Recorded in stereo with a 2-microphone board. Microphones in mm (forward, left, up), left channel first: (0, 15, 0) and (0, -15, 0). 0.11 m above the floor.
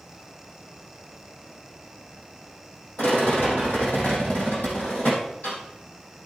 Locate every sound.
3.0 s a rattle: 70° left (ahead or behind), 3.5 m